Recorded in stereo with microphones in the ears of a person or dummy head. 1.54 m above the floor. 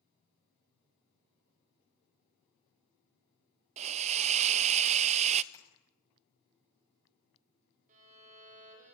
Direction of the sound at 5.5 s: 20° left (ahead or behind).